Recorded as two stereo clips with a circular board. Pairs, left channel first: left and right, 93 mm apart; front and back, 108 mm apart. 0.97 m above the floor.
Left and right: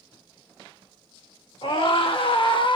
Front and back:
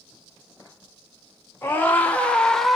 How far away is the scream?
About 2 m.